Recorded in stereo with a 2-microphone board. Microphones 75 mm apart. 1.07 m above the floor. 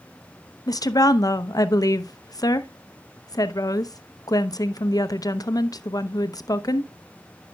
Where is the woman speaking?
55° left (ahead or behind), 0.7 m.